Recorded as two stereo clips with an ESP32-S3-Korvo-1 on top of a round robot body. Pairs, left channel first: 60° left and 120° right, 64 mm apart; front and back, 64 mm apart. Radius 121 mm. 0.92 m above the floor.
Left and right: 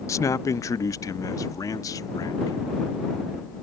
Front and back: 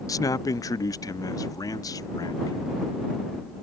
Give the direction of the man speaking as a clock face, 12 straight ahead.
11 o'clock.